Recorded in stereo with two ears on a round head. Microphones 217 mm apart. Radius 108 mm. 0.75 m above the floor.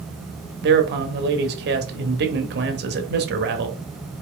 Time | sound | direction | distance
0.6 | a man speaking | 45° right (ahead or behind) | 0.9 m